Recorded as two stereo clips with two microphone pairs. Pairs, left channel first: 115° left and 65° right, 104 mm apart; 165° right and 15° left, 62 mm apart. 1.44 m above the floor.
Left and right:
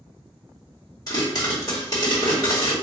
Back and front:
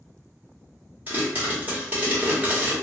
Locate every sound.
1.1 s a pop: 70° left, 1.4 m